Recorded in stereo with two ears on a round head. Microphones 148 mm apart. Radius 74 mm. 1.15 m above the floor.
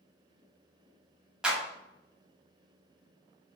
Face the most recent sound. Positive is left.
turn(degrees=-5)  # may be behind; listen again after turning